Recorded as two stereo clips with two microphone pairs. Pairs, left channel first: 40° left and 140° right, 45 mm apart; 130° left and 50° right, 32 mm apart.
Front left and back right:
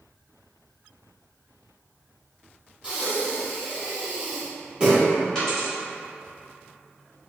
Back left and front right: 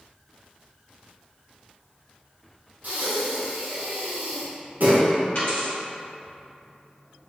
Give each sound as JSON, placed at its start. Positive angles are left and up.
{"t": 2.8, "sound": "breathing", "azimuth_deg": -70, "distance_m": 1.2}
{"t": 5.3, "sound": "a dropped coin", "azimuth_deg": 115, "distance_m": 2.0}